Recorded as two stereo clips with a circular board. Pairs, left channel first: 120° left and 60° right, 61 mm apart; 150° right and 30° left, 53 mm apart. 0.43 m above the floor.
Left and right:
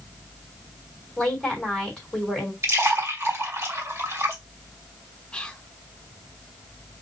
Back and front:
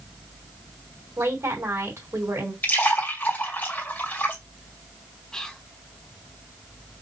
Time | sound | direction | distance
1.2 | a woman speaking | 40° left | 3 m
2.6 | a splash | 95° right | 2 m
5.3 | whispering | 160° left | 0.7 m